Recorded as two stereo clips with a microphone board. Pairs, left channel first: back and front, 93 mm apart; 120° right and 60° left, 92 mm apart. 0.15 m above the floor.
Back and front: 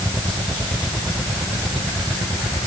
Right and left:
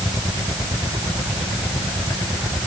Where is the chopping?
No chopping in this recording.